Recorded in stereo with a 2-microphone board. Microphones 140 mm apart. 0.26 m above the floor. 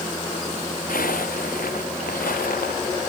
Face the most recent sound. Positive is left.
turn(degrees=80)